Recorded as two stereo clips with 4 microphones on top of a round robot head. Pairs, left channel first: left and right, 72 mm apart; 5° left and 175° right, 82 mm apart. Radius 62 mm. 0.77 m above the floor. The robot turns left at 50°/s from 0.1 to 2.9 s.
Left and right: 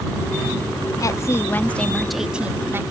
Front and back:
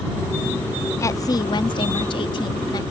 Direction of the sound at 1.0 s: 55° left.